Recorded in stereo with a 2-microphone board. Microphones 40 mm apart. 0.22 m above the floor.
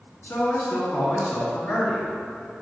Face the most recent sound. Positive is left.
turn(degrees=60)  # may be behind; listen again after turning